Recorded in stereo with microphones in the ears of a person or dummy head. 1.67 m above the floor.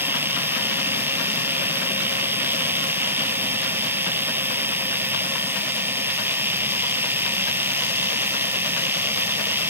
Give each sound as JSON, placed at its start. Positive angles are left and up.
{"t": 0.0, "sound": "a machine running", "side_deg": -5}